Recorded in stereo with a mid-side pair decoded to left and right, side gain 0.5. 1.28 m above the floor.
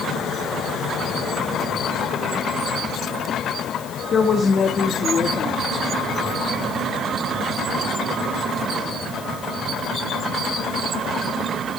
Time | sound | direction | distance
4.1 | a woman speaking | 45° left | 2.5 m